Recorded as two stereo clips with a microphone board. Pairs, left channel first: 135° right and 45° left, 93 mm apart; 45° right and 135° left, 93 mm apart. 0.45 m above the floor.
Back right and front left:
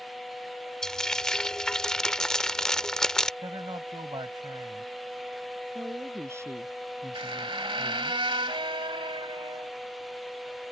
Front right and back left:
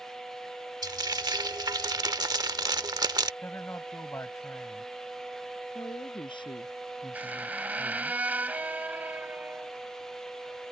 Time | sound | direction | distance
0.8 | frying | 145° left | ?
3.4 | a man speaking | 15° left | ?
5.8 | a woman speaking | 15° right | ?
7.1 | a squeak | 60° left | ?